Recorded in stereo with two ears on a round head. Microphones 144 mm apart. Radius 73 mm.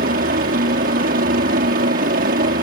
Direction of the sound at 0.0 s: 55° right (ahead or behind).